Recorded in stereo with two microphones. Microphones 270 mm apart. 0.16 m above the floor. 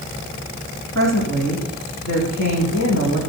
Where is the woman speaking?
75° left (ahead or behind), 8 m.